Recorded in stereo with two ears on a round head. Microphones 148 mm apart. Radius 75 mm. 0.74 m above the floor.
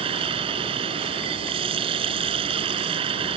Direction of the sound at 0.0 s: 35° right (ahead or behind).